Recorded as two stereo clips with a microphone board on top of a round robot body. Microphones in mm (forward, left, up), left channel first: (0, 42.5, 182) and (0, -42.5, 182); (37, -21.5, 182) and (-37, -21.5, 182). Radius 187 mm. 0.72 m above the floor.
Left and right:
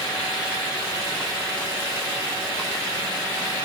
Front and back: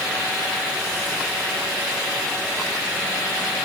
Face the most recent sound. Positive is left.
No sound to turn to.